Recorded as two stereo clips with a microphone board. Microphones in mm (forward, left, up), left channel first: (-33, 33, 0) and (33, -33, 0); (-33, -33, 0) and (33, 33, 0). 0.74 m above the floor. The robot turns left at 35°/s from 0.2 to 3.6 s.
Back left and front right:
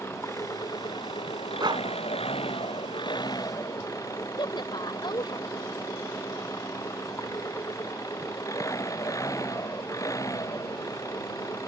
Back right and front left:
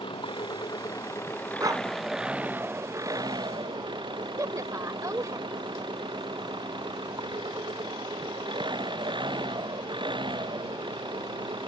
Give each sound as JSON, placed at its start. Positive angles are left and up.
{"t": 0.0, "sound": "an engine running", "azimuth_deg": -160}
{"t": 1.6, "sound": "a dog barking", "azimuth_deg": -5}
{"t": 4.4, "sound": "a woman speaking", "azimuth_deg": 100}